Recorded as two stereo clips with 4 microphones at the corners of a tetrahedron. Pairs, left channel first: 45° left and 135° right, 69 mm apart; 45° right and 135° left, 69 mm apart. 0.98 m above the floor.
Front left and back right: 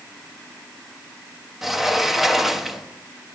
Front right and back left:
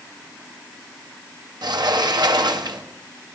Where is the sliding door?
135° left, 0.9 m.